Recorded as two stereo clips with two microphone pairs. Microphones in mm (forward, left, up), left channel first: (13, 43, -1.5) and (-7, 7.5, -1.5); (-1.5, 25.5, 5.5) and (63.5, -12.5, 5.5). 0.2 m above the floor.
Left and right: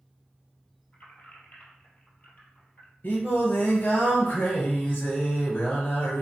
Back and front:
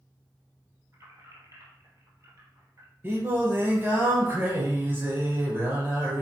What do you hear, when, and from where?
0.9 s keys jangling: 10° left, 3 m
3.0 s singing: 25° left, 3 m